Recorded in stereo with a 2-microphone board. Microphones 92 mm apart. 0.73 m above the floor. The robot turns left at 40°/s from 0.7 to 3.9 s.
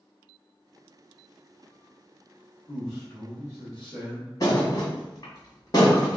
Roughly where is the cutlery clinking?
No cutlery clinking in this recording.